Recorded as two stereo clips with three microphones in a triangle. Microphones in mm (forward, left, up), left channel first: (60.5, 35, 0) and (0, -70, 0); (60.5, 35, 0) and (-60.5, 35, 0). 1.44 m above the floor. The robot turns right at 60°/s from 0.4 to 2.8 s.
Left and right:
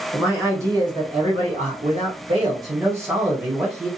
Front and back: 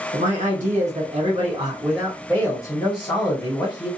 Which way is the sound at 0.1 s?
165° left.